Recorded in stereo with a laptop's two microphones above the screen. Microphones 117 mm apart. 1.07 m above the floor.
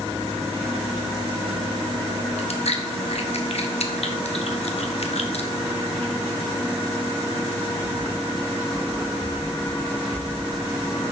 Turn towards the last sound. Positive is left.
turn(degrees=70)  # may be behind; listen again after turning